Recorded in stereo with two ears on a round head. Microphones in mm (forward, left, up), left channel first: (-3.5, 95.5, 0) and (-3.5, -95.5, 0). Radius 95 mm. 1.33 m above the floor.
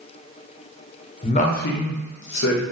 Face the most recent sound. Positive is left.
turn(degrees=50)  # may be behind; listen again after turning